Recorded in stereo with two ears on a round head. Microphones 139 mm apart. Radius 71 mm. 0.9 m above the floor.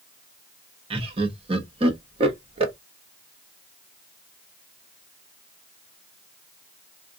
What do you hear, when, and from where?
0.9 s laughter: 35° right (ahead or behind), 1.0 m